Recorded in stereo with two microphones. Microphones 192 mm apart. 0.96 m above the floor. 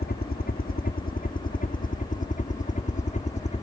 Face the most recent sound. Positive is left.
turn(degrees=40)  # may be behind; listen again after turning